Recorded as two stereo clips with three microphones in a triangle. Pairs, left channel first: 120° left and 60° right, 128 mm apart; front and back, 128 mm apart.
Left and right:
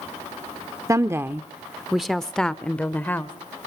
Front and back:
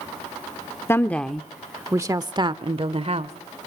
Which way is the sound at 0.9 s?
40° right.